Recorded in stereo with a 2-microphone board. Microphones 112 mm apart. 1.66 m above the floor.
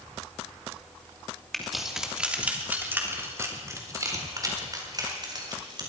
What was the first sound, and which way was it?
Keys jangling, 5° left (ahead or behind).